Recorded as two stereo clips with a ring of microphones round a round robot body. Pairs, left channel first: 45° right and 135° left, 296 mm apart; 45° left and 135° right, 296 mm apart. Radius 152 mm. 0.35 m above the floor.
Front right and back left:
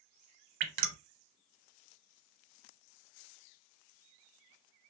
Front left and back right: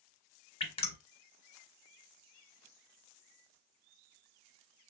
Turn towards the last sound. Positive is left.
turn(degrees=115)